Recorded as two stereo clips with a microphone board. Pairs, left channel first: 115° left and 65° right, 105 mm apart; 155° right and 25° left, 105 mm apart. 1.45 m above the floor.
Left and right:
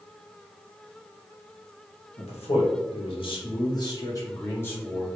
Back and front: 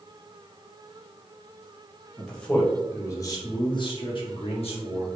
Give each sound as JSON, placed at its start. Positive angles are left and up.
{"t": 2.2, "sound": "a man speaking", "azimuth_deg": 120, "distance_m": 1.2}